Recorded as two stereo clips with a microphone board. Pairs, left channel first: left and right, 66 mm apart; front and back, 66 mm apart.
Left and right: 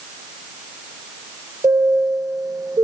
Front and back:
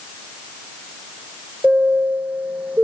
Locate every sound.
1.6 s a chime: 110° right, 0.9 m